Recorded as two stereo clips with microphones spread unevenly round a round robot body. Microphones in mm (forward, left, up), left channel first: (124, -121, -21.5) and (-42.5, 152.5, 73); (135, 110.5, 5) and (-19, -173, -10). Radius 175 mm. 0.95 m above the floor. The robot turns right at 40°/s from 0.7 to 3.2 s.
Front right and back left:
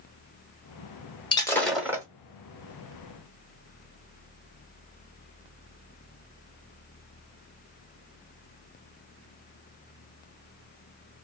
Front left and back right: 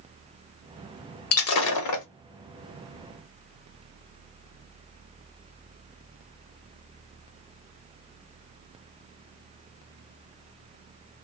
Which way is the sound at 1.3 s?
25° left.